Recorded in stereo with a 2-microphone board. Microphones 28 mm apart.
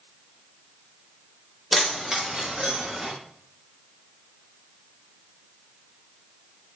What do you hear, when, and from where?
1.7 s keys jangling: 5° right (ahead or behind), 0.5 m; by 3.1 s 35° right (ahead or behind), 1.1 m